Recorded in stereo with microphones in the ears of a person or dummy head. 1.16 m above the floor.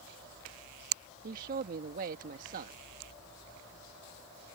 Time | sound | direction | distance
1.2 | a man speaking | 50° right (ahead or behind) | ?